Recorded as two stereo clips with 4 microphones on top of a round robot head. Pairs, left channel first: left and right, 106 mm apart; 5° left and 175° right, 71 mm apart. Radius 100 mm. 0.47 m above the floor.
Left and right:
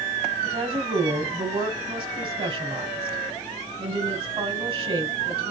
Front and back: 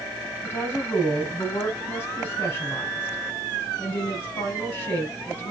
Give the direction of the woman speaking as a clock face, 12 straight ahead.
2 o'clock.